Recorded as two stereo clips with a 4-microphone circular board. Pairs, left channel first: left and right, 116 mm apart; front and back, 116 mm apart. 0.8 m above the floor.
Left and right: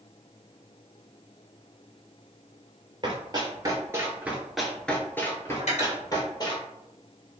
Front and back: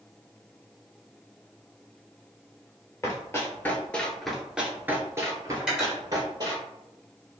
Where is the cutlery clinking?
95° left, 1.6 m.